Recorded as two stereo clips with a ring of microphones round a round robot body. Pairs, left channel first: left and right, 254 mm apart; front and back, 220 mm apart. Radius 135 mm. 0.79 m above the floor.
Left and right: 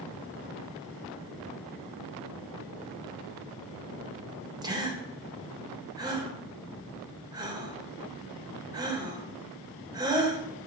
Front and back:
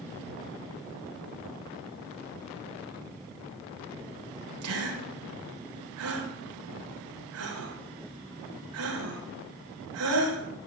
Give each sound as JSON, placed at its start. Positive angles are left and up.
{"t": 4.6, "sound": "a gasp", "azimuth_deg": -165, "distance_m": 3.5}